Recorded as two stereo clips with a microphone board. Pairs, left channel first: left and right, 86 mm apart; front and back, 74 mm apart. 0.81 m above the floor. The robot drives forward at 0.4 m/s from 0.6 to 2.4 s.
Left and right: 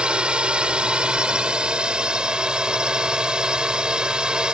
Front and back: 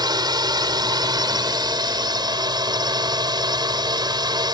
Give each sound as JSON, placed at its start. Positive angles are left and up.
{"t": 0.0, "sound": "a drone", "azimuth_deg": -165}